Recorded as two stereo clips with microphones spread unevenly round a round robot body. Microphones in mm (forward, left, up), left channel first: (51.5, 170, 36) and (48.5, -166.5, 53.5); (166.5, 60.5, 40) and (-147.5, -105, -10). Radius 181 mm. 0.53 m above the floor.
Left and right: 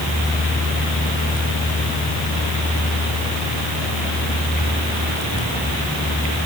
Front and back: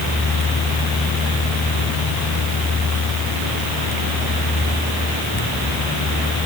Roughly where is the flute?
No flute in this recording.